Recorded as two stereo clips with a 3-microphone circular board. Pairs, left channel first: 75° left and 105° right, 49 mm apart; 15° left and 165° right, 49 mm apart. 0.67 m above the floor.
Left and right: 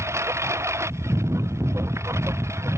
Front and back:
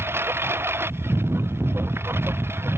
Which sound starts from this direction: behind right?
A lawn mower, at 0.0 s.